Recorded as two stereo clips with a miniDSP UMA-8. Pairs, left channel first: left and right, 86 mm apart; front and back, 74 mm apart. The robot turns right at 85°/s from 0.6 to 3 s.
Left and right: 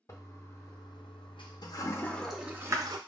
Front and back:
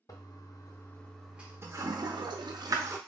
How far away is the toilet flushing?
About 0.6 m.